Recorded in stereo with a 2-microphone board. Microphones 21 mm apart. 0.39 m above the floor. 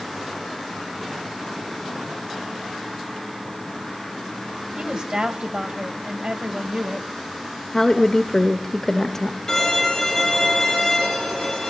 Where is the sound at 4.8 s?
55° right (ahead or behind), 2.5 m.